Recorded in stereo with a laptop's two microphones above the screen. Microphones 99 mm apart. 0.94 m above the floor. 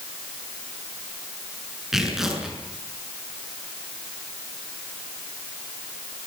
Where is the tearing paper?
5° right (ahead or behind), 6 m.